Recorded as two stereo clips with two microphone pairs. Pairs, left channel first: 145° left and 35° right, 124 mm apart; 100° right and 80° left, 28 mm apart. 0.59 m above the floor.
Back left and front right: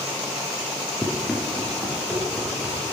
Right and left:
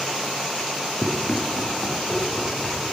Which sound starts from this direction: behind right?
Running footsteps, at 1.0 s.